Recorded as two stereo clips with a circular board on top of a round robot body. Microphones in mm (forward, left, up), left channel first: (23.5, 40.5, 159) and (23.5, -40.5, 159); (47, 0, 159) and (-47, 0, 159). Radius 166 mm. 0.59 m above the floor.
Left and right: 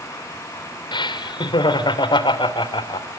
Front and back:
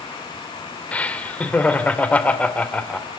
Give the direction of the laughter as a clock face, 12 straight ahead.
9 o'clock.